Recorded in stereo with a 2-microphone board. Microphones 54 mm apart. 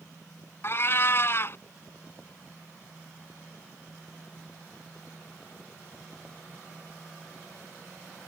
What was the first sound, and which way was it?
A cat meowing, 45° left (ahead or behind).